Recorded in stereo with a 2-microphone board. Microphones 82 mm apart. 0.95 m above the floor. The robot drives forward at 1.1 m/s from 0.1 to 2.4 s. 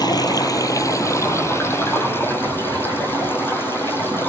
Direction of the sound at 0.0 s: 55° left (ahead or behind).